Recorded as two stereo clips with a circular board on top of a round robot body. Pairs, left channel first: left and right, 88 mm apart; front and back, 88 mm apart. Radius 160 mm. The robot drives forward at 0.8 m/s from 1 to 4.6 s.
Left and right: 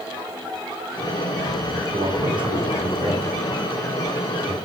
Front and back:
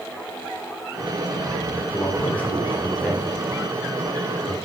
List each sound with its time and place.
1.9 s a man speaking: 65° right, 3.5 m; by 4.5 s 105° right, 3.5 m